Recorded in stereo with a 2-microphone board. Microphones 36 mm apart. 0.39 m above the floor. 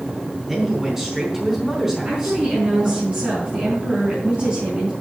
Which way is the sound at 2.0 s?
35° right (ahead or behind).